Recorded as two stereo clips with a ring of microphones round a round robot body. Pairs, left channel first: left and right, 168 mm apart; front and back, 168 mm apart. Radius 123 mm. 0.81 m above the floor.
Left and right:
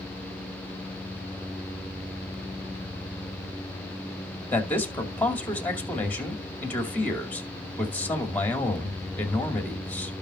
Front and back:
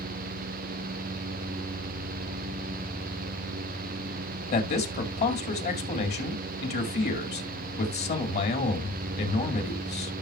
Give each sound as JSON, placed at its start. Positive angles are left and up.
{"t": 4.5, "sound": "a man speaking", "azimuth_deg": 10, "distance_m": 2.5}